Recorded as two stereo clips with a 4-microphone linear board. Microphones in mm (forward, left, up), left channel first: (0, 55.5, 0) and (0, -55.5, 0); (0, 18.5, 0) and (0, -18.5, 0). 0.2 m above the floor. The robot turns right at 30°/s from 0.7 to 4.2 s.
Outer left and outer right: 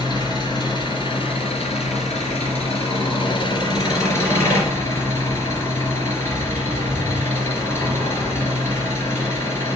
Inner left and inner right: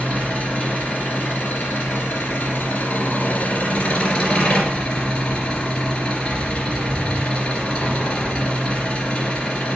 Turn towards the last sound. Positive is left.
turn(degrees=155)